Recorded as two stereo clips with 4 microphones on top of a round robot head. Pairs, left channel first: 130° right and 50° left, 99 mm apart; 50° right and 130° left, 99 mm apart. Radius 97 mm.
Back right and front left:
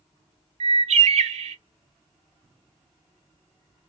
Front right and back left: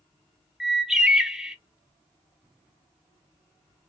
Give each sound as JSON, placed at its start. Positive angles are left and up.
{"t": 0.6, "sound": "a bird", "azimuth_deg": 45, "distance_m": 0.5}